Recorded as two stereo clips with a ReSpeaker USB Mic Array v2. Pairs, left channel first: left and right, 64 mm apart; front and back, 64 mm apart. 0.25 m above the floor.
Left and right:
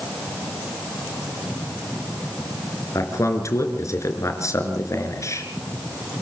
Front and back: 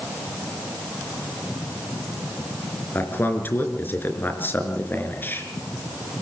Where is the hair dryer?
I don't hear a hair dryer.